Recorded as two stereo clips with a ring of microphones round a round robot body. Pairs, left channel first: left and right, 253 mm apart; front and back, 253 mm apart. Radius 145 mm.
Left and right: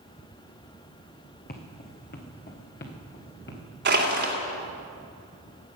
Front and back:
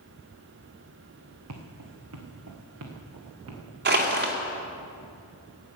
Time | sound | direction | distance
1.5 | footsteps | 145° left | 2 m
3.9 | crushing | 135° right | 2.5 m